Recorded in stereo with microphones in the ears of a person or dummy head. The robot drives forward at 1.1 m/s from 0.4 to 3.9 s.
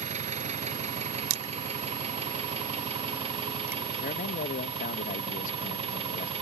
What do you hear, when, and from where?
0.0 s an engine running: 35° right (ahead or behind); by 6.4 s 30° right (ahead or behind)
1.3 s crushing: 90° right; by 3.8 s 10° right (ahead or behind)
4.0 s a man speaking: 40° left (ahead or behind)